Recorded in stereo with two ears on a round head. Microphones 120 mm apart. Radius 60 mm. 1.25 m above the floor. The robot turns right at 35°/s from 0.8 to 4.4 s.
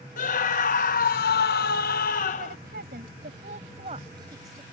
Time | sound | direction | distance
0.2 | a scream | 65° left | ?
2.4 | a woman speaking | 85° right | ?